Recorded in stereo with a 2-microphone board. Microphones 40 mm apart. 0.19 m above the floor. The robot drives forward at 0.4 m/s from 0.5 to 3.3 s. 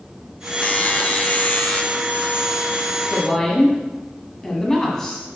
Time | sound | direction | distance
0.6 | a buzzer | 30° left (ahead or behind) | 0.5 m
3.1 | a woman speaking | 15° left (ahead or behind) | 1.6 m